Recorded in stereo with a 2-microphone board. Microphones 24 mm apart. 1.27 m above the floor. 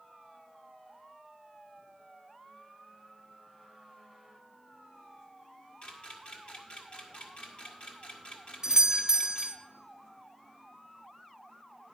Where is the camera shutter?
45° left (ahead or behind), 1.7 m.